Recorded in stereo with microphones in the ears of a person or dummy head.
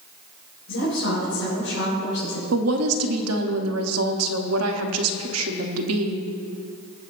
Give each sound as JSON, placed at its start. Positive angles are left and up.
{"t": 0.7, "sound": "a woman speaking", "side_deg": 70, "distance_m": 4.5}
{"t": 2.5, "sound": "a woman speaking", "side_deg": -80, "distance_m": 1.0}